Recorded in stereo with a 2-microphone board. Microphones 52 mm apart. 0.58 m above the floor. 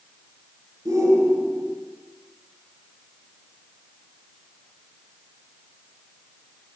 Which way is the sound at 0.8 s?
85° right.